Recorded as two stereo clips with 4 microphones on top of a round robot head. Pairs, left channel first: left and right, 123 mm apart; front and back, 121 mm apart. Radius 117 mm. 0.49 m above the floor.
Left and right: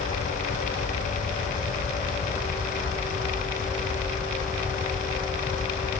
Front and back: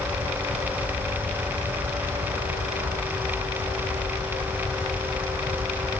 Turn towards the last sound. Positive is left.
No sound to turn to.